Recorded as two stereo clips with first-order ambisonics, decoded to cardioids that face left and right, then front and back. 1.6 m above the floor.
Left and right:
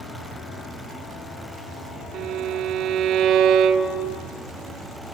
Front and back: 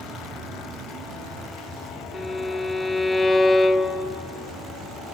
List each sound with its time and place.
2.1 s a violin: 75° right, 0.9 m